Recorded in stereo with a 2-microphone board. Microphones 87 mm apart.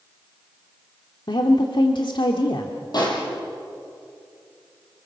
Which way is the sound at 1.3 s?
65° left (ahead or behind).